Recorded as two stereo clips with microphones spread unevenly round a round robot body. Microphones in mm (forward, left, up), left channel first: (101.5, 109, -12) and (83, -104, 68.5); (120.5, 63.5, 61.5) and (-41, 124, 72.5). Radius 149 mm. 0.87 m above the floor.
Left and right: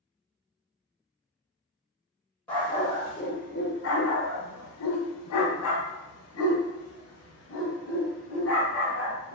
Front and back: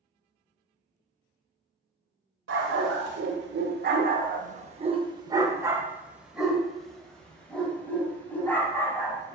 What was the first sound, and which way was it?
A dog barking, 175° left.